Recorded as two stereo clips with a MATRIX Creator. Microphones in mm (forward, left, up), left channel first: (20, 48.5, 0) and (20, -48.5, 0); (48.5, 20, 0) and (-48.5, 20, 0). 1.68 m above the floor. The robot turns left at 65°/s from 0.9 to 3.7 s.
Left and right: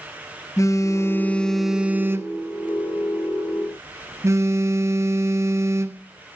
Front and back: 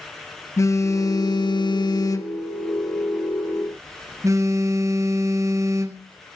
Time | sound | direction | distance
0.6 | a phone buzzing | 45° left | 1.2 m